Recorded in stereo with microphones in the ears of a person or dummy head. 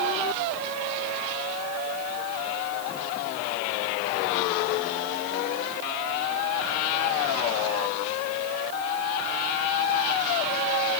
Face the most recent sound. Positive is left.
No sound to turn to.